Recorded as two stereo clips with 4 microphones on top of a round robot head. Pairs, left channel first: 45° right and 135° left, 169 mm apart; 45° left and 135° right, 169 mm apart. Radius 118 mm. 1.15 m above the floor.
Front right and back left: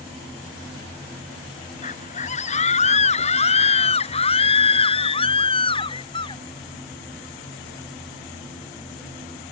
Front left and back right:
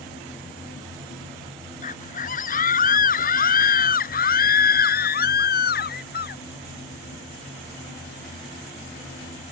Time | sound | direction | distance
1.8 | a scream | straight ahead | ?